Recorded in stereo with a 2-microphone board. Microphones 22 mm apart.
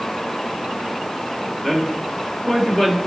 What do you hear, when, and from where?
1.6 s a man speaking: 20° left (ahead or behind), 1.6 m